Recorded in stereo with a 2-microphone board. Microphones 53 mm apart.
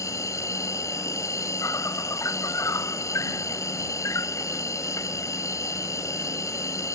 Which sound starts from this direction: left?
An insect, at 0.0 s.